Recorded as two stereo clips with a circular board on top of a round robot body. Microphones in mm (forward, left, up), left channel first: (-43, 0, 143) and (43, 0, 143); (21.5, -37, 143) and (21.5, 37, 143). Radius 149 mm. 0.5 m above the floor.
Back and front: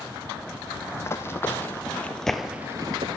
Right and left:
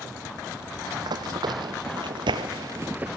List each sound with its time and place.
0.9 s running footsteps: 120° left, 1.7 m; by 3.2 s 15° left, 0.6 m